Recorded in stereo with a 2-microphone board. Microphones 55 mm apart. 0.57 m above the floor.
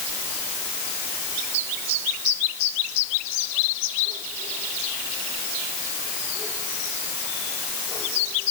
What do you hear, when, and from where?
Only background noise.